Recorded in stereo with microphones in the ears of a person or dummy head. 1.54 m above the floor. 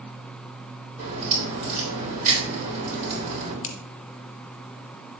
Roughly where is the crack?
Right.